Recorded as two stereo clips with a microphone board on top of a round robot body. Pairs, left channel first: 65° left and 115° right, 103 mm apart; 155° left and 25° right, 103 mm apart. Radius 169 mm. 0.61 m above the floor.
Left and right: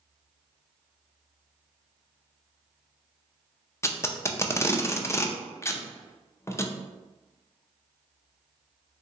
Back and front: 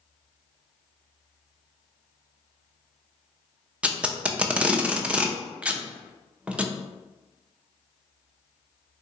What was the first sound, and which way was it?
Tape being pulled, 45° left.